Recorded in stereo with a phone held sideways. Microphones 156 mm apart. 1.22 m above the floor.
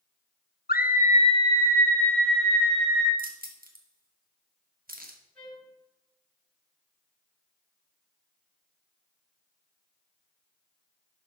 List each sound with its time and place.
0.7 s a scream: 75° left (ahead or behind), 0.8 m; by 3.1 s 5° right (ahead or behind), 2.5 m
3.2 s keys jangling: 70° right (ahead or behind), 1.4 m
5.3 s a trumpet: 5° left (ahead or behind), 5 m